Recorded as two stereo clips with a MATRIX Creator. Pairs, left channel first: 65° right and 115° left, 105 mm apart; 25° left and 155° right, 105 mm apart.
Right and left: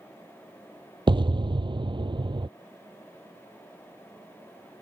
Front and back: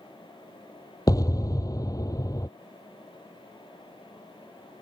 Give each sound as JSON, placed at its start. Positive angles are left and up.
{"t": 1.1, "sound": "an explosion", "azimuth_deg": 75}